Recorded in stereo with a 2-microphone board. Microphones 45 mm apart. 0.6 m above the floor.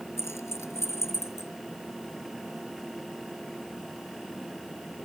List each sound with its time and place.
0.2 s keys jangling: 85° left